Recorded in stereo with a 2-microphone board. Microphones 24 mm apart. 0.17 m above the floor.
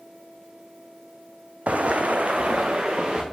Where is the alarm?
I don't hear an alarm.